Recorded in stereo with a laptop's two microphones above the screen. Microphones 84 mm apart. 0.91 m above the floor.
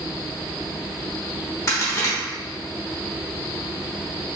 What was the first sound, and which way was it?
A crack, 35° left (ahead or behind).